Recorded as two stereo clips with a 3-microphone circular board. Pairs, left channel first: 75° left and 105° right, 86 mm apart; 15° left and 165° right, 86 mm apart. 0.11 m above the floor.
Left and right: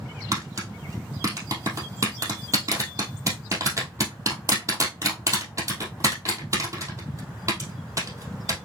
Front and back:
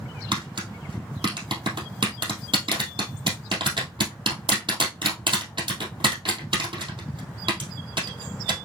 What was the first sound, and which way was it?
Tapping, 155° right.